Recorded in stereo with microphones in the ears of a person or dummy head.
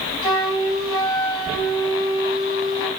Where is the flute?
25° left (ahead or behind), 3 m.